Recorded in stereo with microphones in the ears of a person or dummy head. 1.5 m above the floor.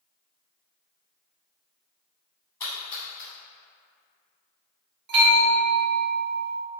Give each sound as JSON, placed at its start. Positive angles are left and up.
{"t": 2.6, "sound": "a splash", "side_deg": 10, "distance_m": 1.1}
{"t": 5.1, "sound": "a bell", "side_deg": -60, "distance_m": 1.2}